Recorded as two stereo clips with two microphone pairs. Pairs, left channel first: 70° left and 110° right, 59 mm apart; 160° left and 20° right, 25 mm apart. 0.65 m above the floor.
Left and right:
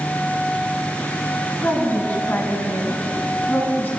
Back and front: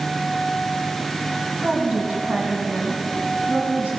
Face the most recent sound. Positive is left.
turn(degrees=15)